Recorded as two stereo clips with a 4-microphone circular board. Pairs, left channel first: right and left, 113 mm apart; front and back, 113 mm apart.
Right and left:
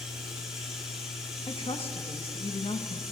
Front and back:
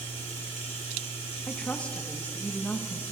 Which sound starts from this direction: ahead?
Running water, at 0.0 s.